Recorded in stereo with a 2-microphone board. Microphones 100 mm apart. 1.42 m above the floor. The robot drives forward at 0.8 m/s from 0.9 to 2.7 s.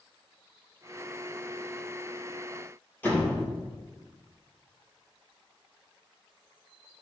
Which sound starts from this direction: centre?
A door slam, at 3.0 s.